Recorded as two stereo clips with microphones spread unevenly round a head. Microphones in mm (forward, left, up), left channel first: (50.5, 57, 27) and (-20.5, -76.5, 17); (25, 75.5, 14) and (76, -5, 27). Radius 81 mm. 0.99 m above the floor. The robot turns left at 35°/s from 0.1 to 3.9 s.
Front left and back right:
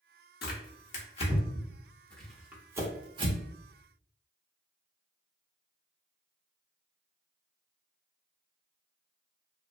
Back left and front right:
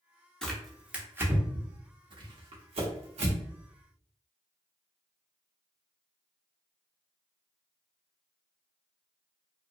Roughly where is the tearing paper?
Ahead left.